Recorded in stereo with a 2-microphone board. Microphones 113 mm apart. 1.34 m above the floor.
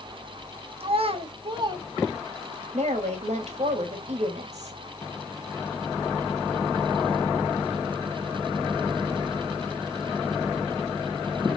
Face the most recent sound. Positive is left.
turn(degrees=-75)  # may be behind; listen again after turning